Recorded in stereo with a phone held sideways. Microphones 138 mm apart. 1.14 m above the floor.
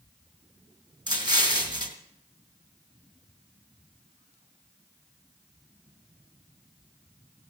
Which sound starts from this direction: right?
An explosion, at 1.1 s.